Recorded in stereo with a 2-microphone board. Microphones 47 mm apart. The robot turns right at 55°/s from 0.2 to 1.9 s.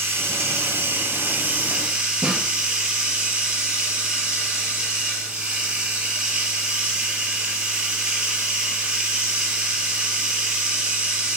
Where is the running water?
110° right, 3.5 m; by 11.4 s 20° right, 3.5 m.